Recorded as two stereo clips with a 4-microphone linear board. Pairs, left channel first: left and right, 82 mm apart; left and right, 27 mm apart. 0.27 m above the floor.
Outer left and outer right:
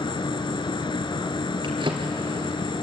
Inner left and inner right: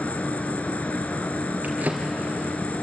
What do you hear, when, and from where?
0.0 s an insect: 70° left (ahead or behind), 1.1 m
1.6 s a drawer: 70° right (ahead or behind), 3 m